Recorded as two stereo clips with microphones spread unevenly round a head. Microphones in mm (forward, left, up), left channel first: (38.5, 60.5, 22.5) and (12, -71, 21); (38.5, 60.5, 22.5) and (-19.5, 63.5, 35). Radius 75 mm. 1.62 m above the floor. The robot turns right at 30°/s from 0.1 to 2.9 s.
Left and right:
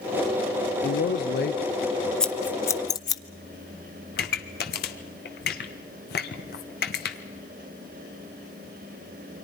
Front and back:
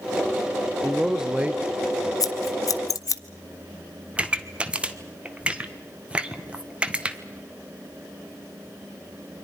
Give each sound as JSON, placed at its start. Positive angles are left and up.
{"t": 0.8, "sound": "a man speaking", "azimuth_deg": 90, "distance_m": 0.8}
{"t": 2.2, "sound": "scissors", "azimuth_deg": -5, "distance_m": 0.9}
{"t": 4.2, "sound": "a pop", "azimuth_deg": 110, "distance_m": 1.3}